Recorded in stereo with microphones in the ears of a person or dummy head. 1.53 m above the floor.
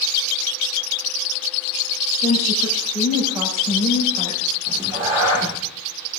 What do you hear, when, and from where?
2.2 s a woman speaking: 15° right (ahead or behind), 4 m
4.7 s a cat meowing: 15° right (ahead or behind), 1.0 m